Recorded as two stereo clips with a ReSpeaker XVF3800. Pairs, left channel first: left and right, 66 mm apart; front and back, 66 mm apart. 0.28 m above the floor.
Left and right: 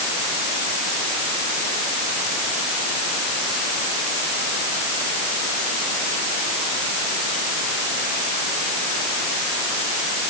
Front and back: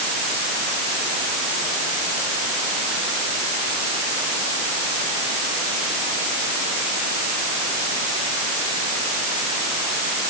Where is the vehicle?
I don't hear a vehicle.